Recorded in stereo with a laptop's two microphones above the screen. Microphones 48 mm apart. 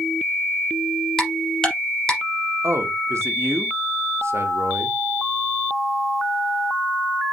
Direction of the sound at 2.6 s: 70° right (ahead or behind).